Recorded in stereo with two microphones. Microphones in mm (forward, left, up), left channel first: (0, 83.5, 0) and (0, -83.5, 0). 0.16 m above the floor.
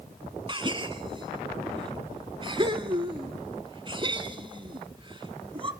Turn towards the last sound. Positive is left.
turn(degrees=-30)  # may be behind; listen again after turning